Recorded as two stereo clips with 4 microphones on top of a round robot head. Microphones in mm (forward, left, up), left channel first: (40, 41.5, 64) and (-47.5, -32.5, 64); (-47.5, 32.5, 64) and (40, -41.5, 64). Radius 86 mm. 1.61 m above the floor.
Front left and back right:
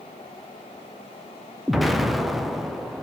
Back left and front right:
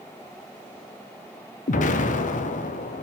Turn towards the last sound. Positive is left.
turn(degrees=130)